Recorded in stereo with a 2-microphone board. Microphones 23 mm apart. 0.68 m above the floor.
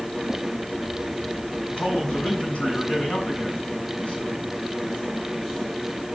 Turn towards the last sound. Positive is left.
turn(degrees=55)  # may be behind; listen again after turning